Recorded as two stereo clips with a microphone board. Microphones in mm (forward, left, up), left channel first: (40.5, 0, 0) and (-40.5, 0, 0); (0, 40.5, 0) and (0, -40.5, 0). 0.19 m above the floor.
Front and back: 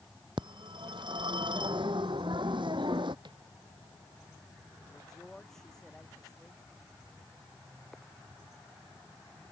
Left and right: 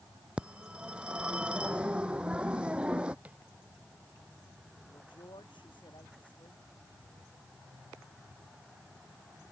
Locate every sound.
0.4 s a phone ringing: 165° right
3.2 s tapping: 165° right
4.9 s a man speaking: 85° left